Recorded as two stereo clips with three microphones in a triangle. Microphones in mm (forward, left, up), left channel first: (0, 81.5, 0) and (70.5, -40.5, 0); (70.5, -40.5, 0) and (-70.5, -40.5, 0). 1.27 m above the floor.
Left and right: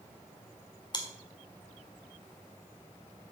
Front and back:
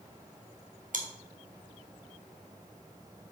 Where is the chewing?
175° left, 1.7 m.